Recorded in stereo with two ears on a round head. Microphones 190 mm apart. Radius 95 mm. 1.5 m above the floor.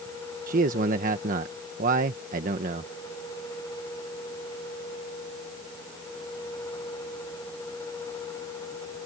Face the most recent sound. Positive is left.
turn(degrees=-40)  # may be behind; listen again after turning